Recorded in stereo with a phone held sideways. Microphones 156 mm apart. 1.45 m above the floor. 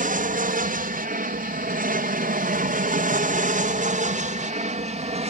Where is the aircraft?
55° right (ahead or behind); by 5.3 s 40° right (ahead or behind).